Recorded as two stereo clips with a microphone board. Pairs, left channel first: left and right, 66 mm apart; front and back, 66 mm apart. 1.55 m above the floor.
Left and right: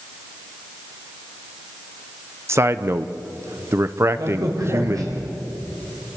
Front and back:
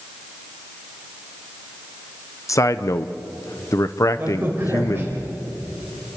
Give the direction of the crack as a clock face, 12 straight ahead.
4 o'clock.